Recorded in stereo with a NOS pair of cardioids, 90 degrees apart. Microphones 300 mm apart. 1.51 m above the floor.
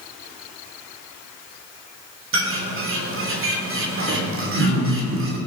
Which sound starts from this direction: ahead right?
A bird, at 2.3 s.